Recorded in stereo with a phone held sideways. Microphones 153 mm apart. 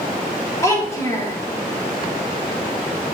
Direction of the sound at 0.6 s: 20° left (ahead or behind).